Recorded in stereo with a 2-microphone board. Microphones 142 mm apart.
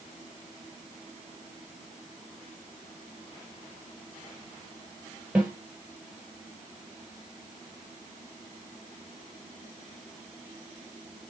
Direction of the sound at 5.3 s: 5° right (ahead or behind).